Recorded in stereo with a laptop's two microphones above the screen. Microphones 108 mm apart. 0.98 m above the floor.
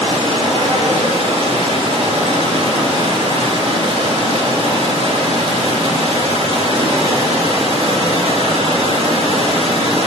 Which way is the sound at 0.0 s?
70° right (ahead or behind).